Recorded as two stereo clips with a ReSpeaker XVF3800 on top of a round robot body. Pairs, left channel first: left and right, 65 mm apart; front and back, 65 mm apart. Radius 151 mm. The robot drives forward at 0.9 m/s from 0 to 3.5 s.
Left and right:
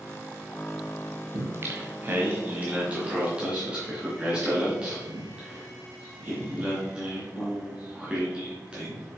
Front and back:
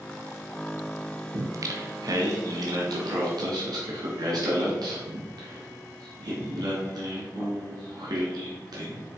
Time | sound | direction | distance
1.3 | singing | 135° right | 0.9 m